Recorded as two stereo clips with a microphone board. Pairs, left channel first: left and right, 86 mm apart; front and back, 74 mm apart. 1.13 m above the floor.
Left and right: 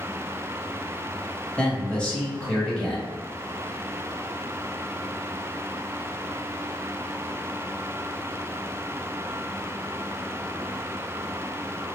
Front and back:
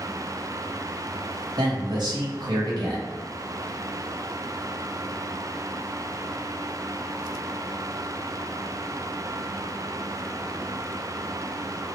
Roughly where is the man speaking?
Behind.